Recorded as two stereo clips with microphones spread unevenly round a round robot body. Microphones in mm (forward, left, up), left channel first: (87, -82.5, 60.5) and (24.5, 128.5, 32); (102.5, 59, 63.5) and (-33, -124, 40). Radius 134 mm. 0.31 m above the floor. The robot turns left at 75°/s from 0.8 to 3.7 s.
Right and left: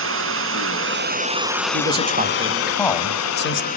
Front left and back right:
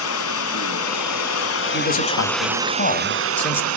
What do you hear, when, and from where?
0.0 s running water: 85° left, 1.4 m; by 3.8 s 135° right, 1.4 m
1.7 s a man speaking: 90° left, 2.5 m; by 3.7 s 55° right, 2.5 m